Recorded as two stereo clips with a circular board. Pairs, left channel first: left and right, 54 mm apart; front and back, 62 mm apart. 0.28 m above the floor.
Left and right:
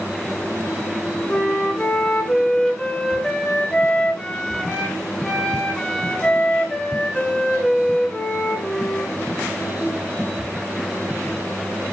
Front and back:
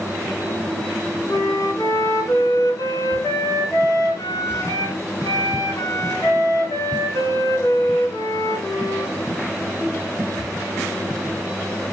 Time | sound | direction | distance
1.3 | a flute | 15° left | 2 m